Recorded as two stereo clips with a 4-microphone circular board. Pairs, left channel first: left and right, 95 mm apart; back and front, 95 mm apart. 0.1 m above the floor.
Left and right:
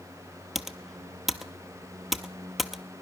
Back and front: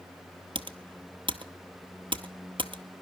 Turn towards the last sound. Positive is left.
turn(degrees=0)